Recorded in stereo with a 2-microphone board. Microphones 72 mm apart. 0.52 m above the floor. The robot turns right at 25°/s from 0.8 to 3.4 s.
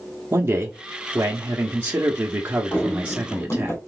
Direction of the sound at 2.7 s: 25° left (ahead or behind).